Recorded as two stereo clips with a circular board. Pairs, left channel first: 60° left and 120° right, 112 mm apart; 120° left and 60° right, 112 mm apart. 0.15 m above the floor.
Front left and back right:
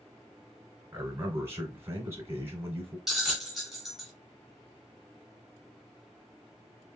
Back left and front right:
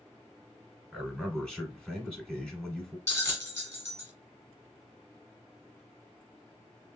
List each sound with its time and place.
0.9 s a man speaking: 165° right, 1.2 m
3.1 s a bell: 155° left, 1.4 m